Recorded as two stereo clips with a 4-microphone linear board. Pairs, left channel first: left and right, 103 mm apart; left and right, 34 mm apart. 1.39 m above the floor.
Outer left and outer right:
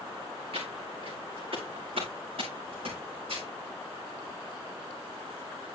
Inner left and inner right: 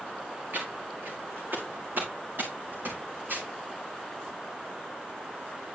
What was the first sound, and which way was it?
Footsteps, 65° right (ahead or behind).